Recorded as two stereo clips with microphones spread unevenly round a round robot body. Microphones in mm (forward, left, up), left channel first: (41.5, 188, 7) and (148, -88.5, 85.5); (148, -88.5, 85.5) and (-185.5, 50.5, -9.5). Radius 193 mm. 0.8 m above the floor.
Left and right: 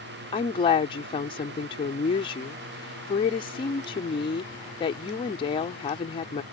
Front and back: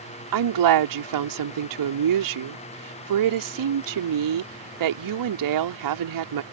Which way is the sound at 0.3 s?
175° right.